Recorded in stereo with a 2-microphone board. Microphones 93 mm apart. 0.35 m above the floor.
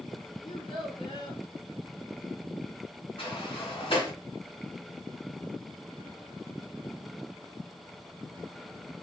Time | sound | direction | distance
0.4 | a child speaking | 70° left (ahead or behind) | 2.5 m
3.2 | a sliding door | 65° left (ahead or behind) | 1.8 m